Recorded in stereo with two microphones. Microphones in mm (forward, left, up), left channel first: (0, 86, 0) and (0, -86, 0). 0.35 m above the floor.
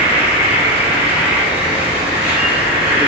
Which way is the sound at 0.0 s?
10° right (ahead or behind).